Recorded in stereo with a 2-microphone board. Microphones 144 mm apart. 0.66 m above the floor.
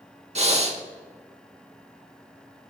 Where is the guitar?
I don't hear a guitar.